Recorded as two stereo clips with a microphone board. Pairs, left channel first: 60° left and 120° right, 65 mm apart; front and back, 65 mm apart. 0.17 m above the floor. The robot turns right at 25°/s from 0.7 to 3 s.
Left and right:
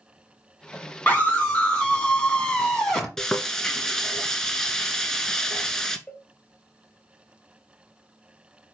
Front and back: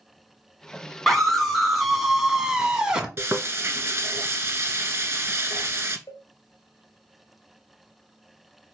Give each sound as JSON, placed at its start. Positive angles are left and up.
{"t": 1.1, "sound": "a scream", "azimuth_deg": 75, "distance_m": 1.6}
{"t": 3.2, "sound": "frying", "azimuth_deg": 140, "distance_m": 0.8}
{"t": 6.1, "sound": "a cowbell", "azimuth_deg": -15, "distance_m": 1.2}